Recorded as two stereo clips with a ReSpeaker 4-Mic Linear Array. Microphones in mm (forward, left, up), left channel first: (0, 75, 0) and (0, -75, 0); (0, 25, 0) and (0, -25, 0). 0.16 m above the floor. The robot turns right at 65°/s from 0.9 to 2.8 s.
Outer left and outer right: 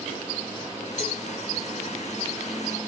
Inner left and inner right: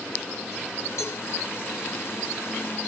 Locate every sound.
1.0 s a cowbell: 55° left (ahead or behind), 4.5 m; by 1.2 s 65° left (ahead or behind), 4.5 m